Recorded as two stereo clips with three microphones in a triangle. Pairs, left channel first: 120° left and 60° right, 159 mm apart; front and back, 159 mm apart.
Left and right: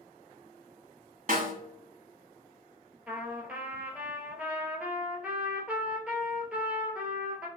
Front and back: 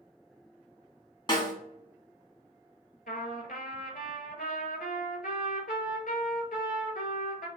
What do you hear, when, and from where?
1.3 s a snare drum: 55° right, 1.1 m
3.1 s a trumpet: 20° left, 0.9 m